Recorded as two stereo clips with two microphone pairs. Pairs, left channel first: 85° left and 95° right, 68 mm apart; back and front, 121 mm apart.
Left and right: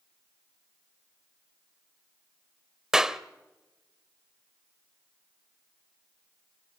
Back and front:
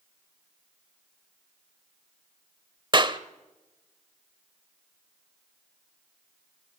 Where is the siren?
No siren in this recording.